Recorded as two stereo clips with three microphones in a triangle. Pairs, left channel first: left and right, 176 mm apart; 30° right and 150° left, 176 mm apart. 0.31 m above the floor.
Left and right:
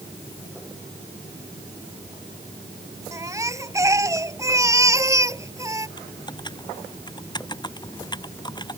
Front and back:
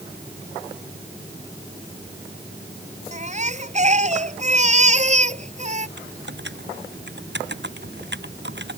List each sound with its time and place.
3.1 s a baby crying: 160° right
6.0 s typing on a keyboard: 155° left